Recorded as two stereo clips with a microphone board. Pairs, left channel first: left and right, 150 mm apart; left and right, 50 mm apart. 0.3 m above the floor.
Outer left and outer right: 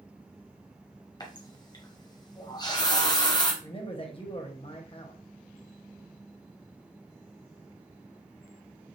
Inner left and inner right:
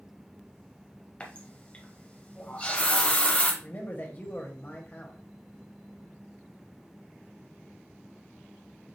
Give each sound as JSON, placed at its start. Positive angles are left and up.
{"t": 1.2, "sound": "a running tap", "side_deg": 25, "distance_m": 1.0}
{"t": 3.6, "sound": "a man speaking", "side_deg": 35, "distance_m": 1.1}